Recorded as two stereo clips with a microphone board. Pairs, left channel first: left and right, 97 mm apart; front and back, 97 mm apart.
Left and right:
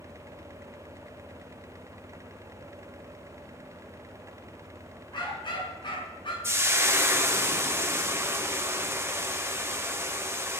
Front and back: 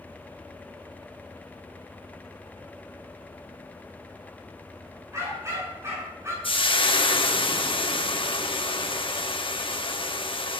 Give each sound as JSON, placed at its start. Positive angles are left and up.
{"t": 5.1, "sound": "a dog barking", "azimuth_deg": 120, "distance_m": 9.0}
{"t": 6.4, "sound": "frying", "azimuth_deg": -25, "distance_m": 1.1}